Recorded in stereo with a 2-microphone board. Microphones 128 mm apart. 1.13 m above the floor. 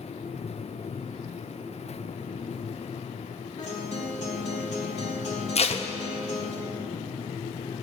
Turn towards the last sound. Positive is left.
turn(degrees=55)  # may be behind; listen again after turning